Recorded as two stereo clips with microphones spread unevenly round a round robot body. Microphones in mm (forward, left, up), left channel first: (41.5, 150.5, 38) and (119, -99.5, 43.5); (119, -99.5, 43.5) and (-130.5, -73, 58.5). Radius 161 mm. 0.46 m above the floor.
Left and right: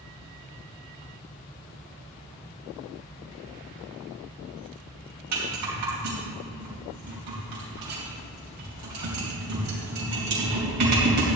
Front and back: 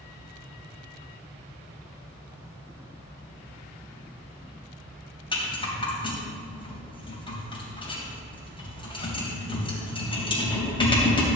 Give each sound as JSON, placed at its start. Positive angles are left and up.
{"t": 5.3, "sound": "a rattle", "azimuth_deg": -75, "distance_m": 3.5}